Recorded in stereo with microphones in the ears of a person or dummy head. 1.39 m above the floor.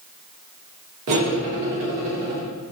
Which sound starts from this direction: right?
Cutlery clinking, at 1.1 s.